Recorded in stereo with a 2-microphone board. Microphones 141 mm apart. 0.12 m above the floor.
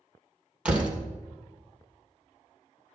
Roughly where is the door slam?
Centre.